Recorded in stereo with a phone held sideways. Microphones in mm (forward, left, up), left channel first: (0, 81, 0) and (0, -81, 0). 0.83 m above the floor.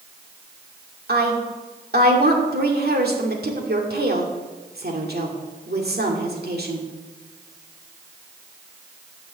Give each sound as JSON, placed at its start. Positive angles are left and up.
{"t": 1.1, "sound": "a woman speaking", "side_deg": -70, "distance_m": 2.0}